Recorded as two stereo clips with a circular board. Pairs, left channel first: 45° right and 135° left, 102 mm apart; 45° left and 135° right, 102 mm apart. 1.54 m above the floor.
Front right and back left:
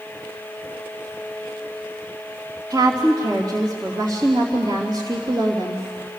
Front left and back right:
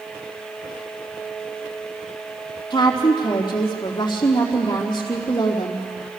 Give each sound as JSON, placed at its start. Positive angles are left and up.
{"t": 2.7, "sound": "a woman speaking", "azimuth_deg": 95, "distance_m": 3.0}